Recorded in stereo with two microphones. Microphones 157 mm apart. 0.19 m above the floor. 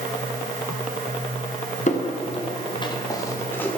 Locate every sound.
1.9 s footsteps: 50° left (ahead or behind), 2.5 m; by 3.8 s 10° left (ahead or behind), 2.5 m